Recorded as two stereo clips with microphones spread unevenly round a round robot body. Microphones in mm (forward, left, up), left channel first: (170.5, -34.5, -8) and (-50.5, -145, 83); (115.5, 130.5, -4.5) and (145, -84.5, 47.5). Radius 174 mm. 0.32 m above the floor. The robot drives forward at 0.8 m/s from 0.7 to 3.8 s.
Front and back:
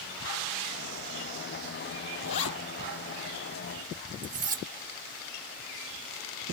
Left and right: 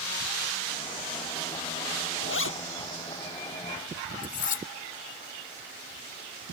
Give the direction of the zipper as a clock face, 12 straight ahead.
10 o'clock.